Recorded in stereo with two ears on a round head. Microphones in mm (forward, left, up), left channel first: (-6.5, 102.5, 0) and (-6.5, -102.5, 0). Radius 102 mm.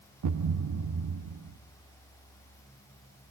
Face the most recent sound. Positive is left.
turn(degrees=-85)